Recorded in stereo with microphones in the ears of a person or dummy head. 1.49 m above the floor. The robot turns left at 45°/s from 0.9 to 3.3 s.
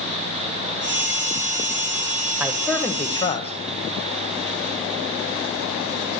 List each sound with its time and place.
2.4 s a man speaking: 175° right, 0.9 m; by 3.5 s 145° left, 0.9 m